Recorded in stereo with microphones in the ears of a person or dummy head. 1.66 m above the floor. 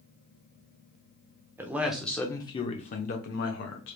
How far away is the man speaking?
About 0.8 m.